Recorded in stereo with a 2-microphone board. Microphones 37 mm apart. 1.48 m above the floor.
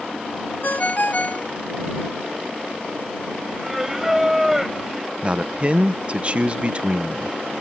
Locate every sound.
0.6 s a ringtone: 50° left (ahead or behind)
3.6 s singing: 10° right (ahead or behind)
5.2 s a man speaking: 30° right (ahead or behind)